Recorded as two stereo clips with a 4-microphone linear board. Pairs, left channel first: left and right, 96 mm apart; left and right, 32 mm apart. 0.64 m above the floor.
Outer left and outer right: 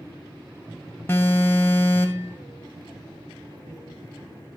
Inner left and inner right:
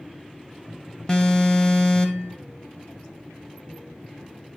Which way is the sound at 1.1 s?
25° left (ahead or behind).